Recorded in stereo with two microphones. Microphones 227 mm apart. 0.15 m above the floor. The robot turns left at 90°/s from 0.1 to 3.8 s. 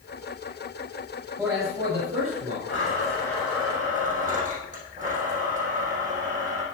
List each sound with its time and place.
1.4 s a man speaking: 5° right, 4.5 m; by 2.6 s 115° right, 4.5 m
2.7 s a blender: 65° left, 4.5 m; by 6.6 s 35° right, 4.5 m